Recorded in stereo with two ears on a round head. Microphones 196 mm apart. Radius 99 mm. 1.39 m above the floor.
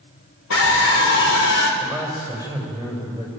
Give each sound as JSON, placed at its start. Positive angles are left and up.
{"t": 0.5, "sound": "a scream", "side_deg": 70, "distance_m": 4.0}
{"t": 1.8, "sound": "a man speaking", "side_deg": 20, "distance_m": 7.0}